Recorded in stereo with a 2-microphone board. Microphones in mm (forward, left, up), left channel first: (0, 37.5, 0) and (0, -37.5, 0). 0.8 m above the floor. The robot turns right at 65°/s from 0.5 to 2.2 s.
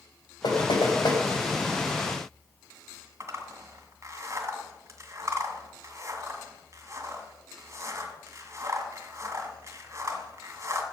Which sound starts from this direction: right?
A zipper, at 3.2 s.